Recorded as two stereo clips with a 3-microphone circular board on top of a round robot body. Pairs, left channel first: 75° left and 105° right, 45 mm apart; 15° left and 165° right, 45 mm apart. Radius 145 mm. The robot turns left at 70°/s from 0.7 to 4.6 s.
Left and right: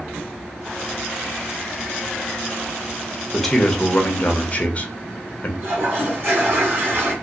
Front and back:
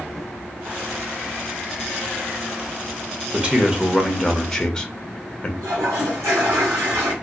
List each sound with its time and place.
3.3 s a man speaking: 165° left, 0.9 m; by 5.5 s 75° left, 0.9 m
5.6 s a toilet flushing: 145° right, 1.0 m